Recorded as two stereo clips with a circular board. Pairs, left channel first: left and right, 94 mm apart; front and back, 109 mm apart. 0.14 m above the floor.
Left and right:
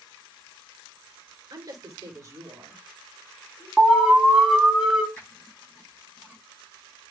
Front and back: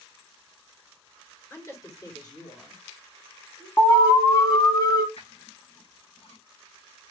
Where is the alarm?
10° right, 1.6 m.